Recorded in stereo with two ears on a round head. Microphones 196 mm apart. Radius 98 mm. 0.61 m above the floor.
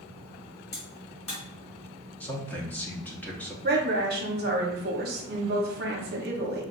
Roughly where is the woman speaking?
Right.